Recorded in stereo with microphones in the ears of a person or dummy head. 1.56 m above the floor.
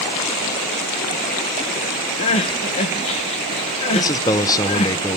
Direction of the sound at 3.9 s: 20° left (ahead or behind).